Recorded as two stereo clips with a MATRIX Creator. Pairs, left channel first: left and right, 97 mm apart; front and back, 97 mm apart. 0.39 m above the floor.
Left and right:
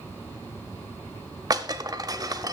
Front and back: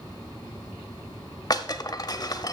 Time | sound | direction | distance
1.5 | breaking glass | 45° right | 0.6 m